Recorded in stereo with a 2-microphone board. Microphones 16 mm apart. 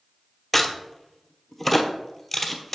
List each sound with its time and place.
0.5 s a crack: 5° left (ahead or behind), 0.9 m